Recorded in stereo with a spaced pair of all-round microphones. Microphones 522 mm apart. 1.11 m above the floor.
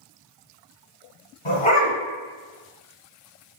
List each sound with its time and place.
1.4 s a dog barking: 65° left (ahead or behind), 1.9 m